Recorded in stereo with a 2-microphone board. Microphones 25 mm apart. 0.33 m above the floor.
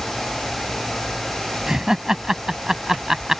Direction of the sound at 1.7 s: 25° right (ahead or behind).